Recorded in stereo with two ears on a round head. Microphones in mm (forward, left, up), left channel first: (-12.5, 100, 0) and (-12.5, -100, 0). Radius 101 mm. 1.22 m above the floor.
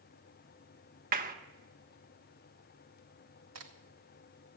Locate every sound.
1.1 s a clap: 40° right (ahead or behind), 1.1 m
3.5 s a crack: 70° right (ahead or behind), 2 m